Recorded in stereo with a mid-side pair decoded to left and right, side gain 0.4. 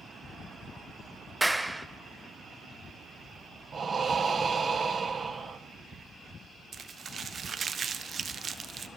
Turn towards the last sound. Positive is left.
turn(degrees=-45)